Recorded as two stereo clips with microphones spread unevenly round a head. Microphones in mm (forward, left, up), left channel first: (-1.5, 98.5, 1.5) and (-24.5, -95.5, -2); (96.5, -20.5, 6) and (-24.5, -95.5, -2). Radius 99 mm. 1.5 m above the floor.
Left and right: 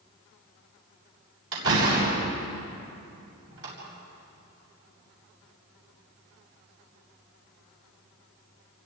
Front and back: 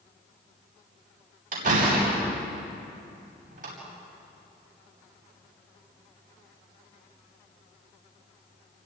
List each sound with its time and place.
1.5 s a door slam: 120° right, 8.5 m